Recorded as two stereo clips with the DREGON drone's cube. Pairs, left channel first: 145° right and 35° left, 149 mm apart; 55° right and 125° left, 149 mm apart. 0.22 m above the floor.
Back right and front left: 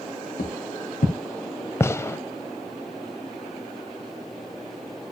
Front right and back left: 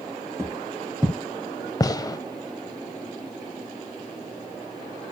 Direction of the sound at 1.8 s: 95° right.